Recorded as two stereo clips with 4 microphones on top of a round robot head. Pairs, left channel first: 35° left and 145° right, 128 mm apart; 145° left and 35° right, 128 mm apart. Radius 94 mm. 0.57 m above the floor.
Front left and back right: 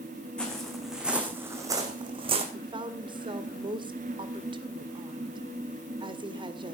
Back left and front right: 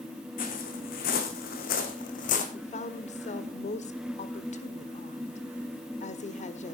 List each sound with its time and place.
0.4 s footsteps: 120° left, 3 m; by 2.4 s 175° left, 2.5 m
2.5 s a woman speaking: 165° left, 1.7 m